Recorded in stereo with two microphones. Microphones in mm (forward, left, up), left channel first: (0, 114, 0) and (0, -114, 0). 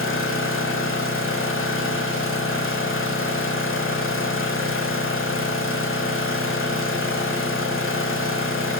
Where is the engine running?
65° left (ahead or behind), 1.3 m.